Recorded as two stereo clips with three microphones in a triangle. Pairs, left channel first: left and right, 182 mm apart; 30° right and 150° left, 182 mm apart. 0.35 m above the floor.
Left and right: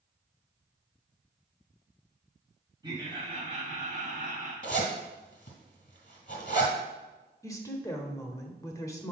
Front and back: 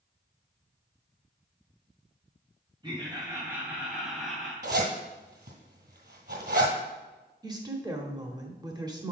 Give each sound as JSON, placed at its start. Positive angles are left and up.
{"t": 2.8, "sound": "laughter", "azimuth_deg": -150, "distance_m": 1.8}
{"t": 4.6, "sound": "a zipper", "azimuth_deg": 130, "distance_m": 2.0}
{"t": 7.4, "sound": "a woman speaking", "azimuth_deg": 130, "distance_m": 0.9}